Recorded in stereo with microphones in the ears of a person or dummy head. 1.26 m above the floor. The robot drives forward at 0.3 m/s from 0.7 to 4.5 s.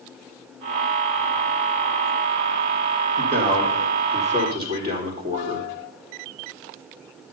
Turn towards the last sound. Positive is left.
turn(degrees=-30)  # may be behind; listen again after turning